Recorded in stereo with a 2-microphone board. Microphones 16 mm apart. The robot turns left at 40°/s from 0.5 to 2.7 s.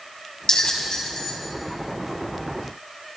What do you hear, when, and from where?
0.5 s a bell: 50° left (ahead or behind), 4 m; by 1.4 s 75° left (ahead or behind), 4 m